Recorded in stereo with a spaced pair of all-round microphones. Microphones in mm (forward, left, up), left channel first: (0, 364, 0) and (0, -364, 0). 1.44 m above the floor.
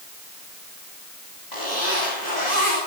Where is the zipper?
75° left (ahead or behind), 9 m.